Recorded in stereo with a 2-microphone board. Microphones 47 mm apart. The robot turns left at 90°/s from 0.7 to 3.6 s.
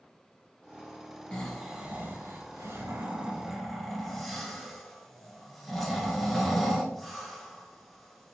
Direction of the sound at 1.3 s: 20° left (ahead or behind).